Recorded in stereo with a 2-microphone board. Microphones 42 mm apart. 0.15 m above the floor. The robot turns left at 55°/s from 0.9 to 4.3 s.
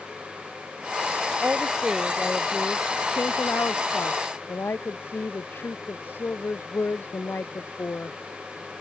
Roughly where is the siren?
I don't hear a siren.